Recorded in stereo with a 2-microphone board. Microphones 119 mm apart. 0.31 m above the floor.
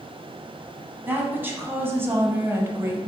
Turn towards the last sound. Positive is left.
turn(degrees=-25)  # may be behind; listen again after turning